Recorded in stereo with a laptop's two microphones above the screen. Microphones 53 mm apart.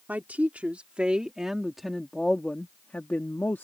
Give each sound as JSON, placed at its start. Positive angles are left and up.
{"t": 0.1, "sound": "a woman speaking", "side_deg": -30}